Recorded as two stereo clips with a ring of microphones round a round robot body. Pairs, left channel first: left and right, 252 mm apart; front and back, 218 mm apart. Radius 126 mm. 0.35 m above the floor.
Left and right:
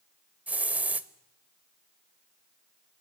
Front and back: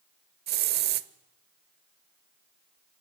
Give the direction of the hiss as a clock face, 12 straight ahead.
6 o'clock.